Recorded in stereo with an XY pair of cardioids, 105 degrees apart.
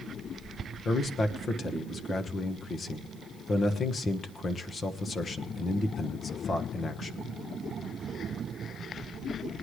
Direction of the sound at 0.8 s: 40° left.